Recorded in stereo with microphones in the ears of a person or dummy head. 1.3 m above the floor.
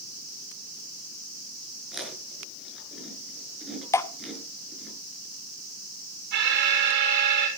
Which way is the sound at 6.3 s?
55° right (ahead or behind).